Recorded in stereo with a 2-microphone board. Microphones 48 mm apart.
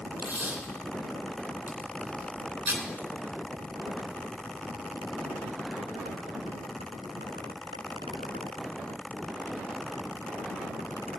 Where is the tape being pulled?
40° right (ahead or behind), 2.5 m.